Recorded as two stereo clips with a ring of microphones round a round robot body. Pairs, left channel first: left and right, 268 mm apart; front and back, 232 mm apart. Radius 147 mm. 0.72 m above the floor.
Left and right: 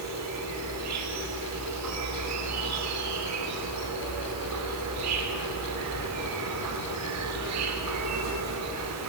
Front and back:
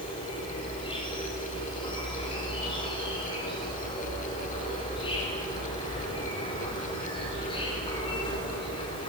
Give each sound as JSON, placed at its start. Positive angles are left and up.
{"t": 0.0, "sound": "an insect", "azimuth_deg": -70, "distance_m": 3.0}